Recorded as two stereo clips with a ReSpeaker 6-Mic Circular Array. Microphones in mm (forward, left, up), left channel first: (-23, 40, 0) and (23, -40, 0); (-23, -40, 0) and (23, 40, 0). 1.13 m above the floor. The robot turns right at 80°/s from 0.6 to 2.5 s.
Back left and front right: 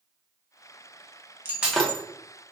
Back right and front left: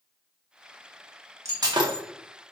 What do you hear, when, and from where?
1.4 s breaking glass: 5° left, 0.7 m; by 2.0 s 50° left, 0.7 m